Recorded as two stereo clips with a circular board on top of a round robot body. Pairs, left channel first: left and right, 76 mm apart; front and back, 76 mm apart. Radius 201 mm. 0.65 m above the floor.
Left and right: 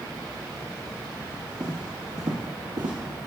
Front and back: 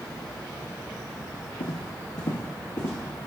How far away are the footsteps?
About 1.4 m.